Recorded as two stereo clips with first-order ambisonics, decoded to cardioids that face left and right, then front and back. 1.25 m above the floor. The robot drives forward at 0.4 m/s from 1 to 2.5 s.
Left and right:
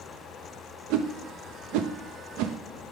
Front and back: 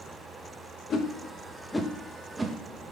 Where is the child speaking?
No child speaking in this recording.